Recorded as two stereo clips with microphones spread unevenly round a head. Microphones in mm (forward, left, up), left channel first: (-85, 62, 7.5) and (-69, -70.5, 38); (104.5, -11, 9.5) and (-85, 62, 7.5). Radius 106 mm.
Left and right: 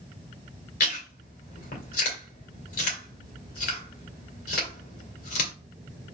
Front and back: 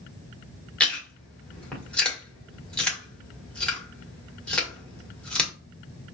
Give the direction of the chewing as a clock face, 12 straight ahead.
10 o'clock.